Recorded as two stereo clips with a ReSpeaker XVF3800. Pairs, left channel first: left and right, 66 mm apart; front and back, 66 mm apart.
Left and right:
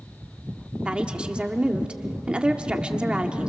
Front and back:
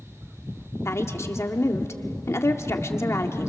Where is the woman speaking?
20° right, 1.5 m.